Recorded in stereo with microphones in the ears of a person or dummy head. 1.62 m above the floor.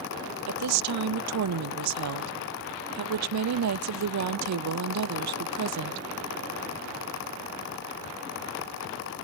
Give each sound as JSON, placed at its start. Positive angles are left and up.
{"t": 0.5, "sound": "a woman speaking", "side_deg": -80, "distance_m": 0.5}